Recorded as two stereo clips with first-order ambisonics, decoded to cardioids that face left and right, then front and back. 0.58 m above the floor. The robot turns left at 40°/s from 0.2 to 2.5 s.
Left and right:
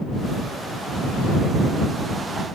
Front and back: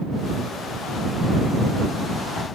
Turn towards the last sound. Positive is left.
No sound to turn to.